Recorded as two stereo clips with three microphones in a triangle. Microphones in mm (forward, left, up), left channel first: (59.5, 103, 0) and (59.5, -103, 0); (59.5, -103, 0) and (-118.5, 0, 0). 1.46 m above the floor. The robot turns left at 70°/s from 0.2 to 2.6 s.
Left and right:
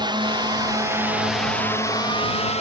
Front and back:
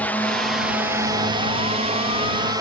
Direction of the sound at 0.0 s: 100° right.